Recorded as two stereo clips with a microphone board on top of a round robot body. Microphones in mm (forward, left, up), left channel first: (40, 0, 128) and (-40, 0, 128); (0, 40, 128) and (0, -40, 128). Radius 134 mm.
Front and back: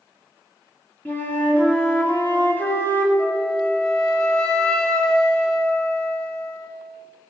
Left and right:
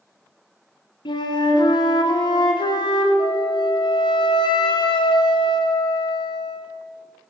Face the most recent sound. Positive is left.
turn(degrees=80)